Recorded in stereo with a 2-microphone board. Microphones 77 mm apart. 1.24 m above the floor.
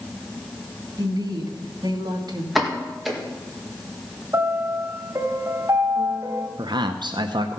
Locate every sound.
1.0 s a woman speaking: 65° right (ahead or behind), 2.0 m
2.5 s a pop: centre (ahead or behind), 1.9 m
4.3 s a piano: 40° right (ahead or behind), 1.3 m
6.6 s a man speaking: 70° right (ahead or behind), 0.7 m